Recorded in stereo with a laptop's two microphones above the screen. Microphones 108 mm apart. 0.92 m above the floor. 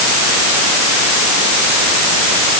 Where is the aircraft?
I don't hear an aircraft.